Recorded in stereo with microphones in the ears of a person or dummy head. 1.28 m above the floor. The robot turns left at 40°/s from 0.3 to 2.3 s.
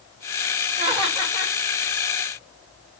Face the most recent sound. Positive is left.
turn(degrees=150)